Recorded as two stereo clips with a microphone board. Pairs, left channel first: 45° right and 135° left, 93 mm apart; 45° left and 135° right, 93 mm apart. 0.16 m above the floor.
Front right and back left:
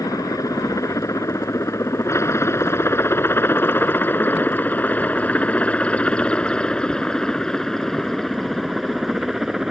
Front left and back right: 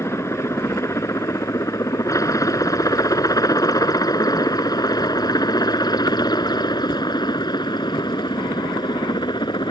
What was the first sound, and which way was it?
A helicopter, 5° right.